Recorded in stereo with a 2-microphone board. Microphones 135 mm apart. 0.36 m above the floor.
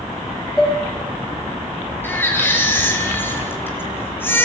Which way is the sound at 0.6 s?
5° left (ahead or behind).